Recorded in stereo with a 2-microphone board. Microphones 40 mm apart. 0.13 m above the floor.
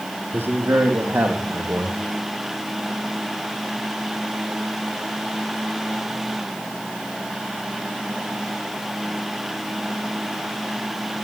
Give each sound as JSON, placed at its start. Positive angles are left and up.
{"t": 0.3, "sound": "a man speaking", "side_deg": -75, "distance_m": 4.0}